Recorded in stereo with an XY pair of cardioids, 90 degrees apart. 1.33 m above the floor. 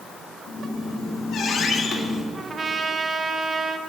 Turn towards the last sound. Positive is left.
turn(degrees=-40)